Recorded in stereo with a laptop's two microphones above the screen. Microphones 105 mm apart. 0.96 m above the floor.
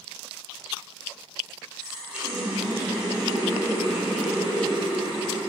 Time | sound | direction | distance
1.8 | a running tap | 10° right (ahead or behind) | 3.5 m